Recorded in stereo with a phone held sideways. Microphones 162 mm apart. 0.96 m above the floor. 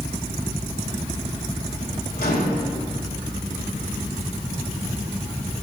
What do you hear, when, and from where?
2.2 s a microwave: 70° left (ahead or behind), 2.5 m